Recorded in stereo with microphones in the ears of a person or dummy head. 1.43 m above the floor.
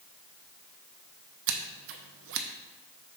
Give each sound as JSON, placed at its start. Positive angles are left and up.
{"t": 1.5, "sound": "scissors", "side_deg": -75, "distance_m": 0.6}